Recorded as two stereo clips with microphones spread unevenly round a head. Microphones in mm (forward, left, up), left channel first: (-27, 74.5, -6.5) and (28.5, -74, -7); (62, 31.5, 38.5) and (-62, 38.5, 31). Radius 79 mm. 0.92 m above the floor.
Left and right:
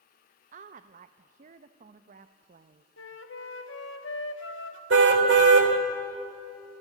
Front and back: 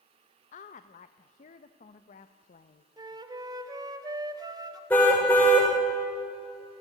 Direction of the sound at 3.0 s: 120° left.